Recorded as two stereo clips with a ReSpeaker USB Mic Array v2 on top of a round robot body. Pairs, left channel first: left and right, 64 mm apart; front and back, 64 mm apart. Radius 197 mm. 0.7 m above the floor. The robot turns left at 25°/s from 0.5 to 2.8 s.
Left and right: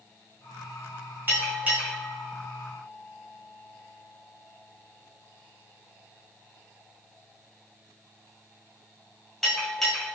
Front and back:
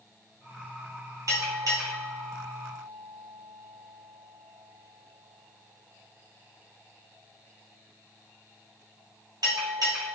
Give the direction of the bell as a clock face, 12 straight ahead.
5 o'clock.